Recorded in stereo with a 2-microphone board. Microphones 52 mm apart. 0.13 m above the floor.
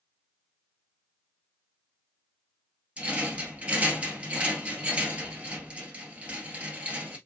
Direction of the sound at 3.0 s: 25° right (ahead or behind).